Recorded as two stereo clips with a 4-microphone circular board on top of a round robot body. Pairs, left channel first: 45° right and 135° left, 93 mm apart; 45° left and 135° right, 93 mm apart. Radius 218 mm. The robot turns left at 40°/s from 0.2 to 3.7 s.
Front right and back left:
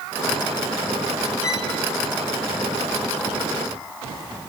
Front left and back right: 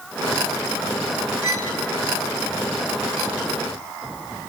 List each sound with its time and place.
1.4 s a violin: 10° left, 3 m; by 1.8 s 5° right, 3 m